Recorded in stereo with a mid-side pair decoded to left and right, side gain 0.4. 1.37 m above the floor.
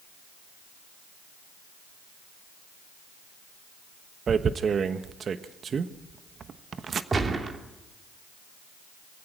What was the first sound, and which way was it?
Tearing paper, 50° right.